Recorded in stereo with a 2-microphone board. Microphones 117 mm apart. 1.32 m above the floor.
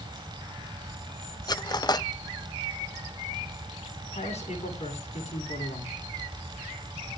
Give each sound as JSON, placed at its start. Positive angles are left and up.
{"t": 1.5, "sound": "cutlery clinking", "side_deg": 35, "distance_m": 0.5}
{"t": 4.1, "sound": "a man speaking", "side_deg": 75, "distance_m": 9.0}